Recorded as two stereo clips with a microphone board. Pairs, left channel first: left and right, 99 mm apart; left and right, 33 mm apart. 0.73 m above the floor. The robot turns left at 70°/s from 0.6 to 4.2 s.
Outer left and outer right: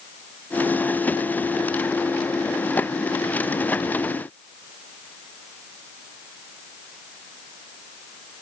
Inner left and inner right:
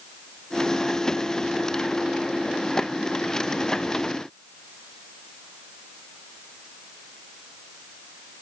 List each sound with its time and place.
Only background noise.